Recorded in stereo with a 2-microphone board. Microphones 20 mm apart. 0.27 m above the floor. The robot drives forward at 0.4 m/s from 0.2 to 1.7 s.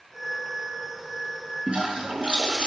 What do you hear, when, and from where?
1.7 s a toilet flushing: 85° right, 0.7 m